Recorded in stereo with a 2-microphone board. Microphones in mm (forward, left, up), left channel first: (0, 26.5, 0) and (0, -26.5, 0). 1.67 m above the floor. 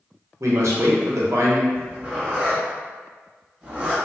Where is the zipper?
20° right (ahead or behind), 1.1 m.